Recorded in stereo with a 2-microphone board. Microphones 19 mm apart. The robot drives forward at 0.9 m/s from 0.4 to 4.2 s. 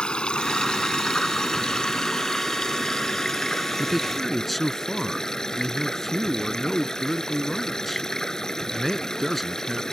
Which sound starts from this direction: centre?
A man speaking, at 3.8 s.